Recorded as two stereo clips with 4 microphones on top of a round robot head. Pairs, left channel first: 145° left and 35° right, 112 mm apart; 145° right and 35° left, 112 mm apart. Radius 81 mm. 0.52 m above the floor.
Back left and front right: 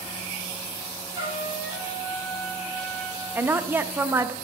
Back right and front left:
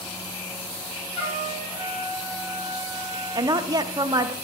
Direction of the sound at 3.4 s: 25° left.